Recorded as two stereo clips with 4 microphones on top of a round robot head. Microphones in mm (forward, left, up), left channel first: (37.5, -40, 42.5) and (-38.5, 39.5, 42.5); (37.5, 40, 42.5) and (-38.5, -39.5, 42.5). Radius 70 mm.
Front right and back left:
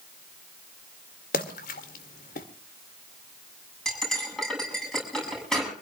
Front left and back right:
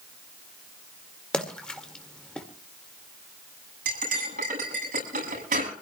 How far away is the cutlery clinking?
About 7.5 m.